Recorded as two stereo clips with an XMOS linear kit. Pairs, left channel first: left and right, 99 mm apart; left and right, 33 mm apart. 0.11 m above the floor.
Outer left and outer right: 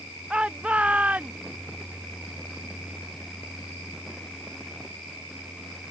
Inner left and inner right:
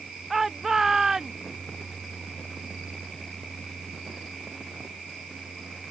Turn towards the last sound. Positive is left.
turn(degrees=-15)  # may be behind; listen again after turning